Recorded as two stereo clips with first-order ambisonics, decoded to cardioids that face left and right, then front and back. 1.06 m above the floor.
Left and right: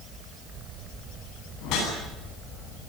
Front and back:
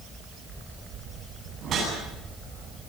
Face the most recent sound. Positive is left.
turn(degrees=125)